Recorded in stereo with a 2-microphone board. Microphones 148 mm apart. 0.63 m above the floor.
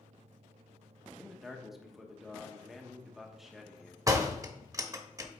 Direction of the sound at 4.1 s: 25° right (ahead or behind).